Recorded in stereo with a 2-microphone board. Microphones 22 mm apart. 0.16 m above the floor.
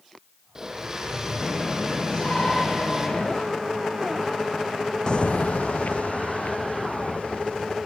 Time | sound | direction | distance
0.6 | a blender | 20° right (ahead or behind) | 4.5 m
2.1 | a shout | 45° left (ahead or behind) | 4.5 m
5.1 | footsteps | 40° left (ahead or behind) | 0.5 m